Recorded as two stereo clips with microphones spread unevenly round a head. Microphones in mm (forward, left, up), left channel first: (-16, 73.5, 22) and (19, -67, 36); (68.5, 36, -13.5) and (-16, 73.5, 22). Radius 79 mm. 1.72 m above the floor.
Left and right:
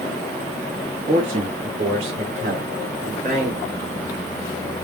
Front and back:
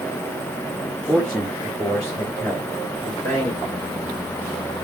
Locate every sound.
1.1 s a man speaking: 130° right, 4 m; by 3.5 s 115° right, 6 m